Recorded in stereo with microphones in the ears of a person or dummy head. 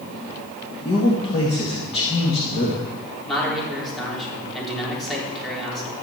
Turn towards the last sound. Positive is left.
turn(degrees=0)  # may be behind; listen again after turning